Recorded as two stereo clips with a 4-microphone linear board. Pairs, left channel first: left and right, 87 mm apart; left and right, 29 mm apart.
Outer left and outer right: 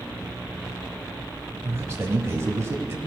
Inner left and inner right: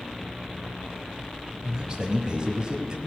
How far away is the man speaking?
About 1.1 m.